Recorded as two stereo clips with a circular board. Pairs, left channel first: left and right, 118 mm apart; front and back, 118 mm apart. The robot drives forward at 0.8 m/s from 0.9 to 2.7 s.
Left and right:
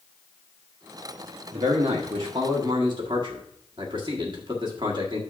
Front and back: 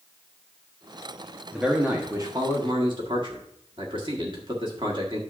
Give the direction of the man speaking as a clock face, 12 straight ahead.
3 o'clock.